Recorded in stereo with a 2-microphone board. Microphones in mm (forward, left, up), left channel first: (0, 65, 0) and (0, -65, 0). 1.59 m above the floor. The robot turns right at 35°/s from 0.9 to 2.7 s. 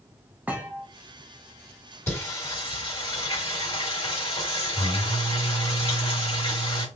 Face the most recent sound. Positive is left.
turn(degrees=40)  # may be behind; listen again after turning